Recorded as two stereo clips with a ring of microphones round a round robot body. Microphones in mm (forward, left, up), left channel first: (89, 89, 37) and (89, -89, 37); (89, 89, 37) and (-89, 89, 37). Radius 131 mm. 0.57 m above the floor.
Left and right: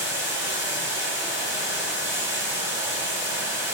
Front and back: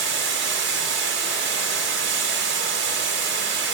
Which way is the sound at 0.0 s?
170° right.